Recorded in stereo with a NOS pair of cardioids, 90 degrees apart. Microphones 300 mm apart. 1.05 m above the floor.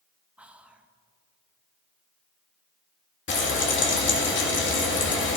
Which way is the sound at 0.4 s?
5° right.